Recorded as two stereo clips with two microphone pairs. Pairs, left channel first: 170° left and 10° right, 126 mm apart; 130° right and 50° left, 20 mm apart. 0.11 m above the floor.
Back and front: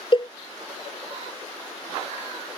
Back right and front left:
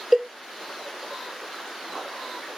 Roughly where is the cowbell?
Behind left.